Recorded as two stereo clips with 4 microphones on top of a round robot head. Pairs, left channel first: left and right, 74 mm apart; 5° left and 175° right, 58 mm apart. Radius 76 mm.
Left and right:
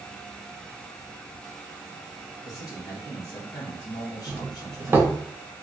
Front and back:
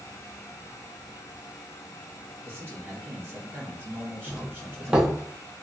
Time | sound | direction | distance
2.5 | a man speaking | 135° left | 1.6 m
4.3 | a doorbell | 110° right | 0.7 m